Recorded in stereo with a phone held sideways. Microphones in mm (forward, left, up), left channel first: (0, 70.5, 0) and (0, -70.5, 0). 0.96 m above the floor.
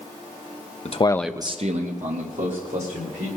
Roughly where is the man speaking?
Left.